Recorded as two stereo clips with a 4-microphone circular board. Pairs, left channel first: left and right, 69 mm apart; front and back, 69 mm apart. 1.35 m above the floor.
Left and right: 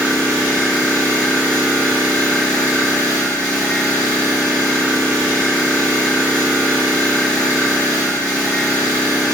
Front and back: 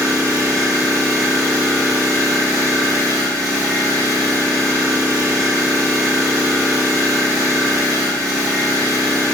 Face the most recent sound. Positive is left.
turn(degrees=160)